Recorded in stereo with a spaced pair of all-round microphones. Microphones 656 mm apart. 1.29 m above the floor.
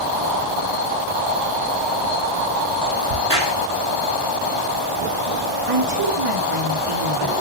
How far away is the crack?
About 3 m.